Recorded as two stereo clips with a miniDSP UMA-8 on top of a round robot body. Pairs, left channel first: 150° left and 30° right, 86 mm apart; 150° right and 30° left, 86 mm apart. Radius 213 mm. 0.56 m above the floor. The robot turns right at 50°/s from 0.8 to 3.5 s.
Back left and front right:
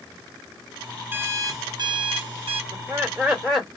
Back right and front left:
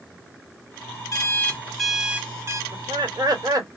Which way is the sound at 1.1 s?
95° right.